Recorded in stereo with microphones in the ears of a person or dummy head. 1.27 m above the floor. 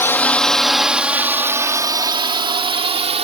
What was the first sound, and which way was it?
A drone, 15° left (ahead or behind).